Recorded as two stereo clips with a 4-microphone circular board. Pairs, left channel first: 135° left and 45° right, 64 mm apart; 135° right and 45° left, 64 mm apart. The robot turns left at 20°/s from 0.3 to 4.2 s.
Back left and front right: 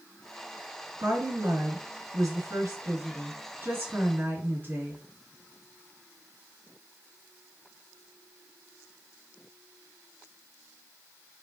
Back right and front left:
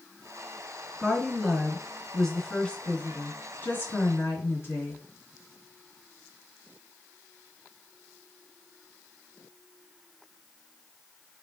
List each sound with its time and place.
1.0 s a woman speaking: 30° right, 2.5 m; by 5.0 s 95° right, 2.5 m